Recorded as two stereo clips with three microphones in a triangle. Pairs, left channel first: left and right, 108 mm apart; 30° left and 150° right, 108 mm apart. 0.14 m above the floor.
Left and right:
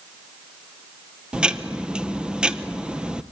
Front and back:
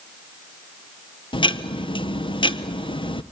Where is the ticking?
10° right, 0.7 m.